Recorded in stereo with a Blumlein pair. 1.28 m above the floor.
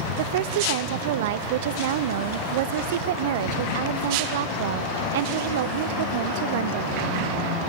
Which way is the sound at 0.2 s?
55° right.